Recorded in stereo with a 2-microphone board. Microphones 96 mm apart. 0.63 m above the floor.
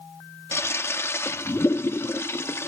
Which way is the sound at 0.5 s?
25° left (ahead or behind).